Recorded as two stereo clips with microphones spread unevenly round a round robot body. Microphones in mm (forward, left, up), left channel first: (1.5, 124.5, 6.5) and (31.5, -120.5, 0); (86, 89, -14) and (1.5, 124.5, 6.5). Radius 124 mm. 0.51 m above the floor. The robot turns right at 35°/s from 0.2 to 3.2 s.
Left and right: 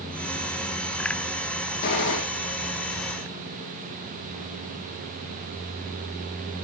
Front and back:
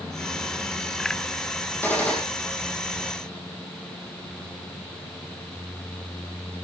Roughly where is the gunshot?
Ahead left.